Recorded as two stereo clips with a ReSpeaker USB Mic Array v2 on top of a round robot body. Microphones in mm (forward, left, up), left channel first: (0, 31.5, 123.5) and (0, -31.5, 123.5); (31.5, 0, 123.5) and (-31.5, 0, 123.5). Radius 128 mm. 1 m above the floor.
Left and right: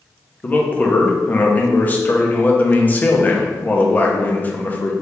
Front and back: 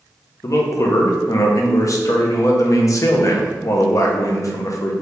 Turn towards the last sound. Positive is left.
turn(degrees=30)